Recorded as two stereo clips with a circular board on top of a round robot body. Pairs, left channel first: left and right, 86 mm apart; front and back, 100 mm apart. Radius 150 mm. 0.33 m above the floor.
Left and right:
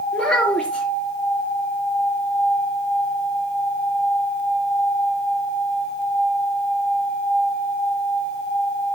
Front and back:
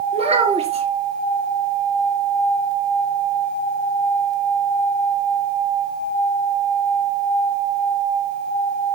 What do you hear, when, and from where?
0.1 s a child speaking: straight behind, 3 m